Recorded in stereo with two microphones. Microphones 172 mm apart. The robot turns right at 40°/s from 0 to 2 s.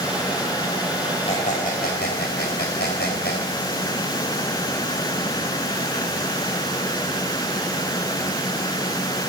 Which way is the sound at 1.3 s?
35° left (ahead or behind).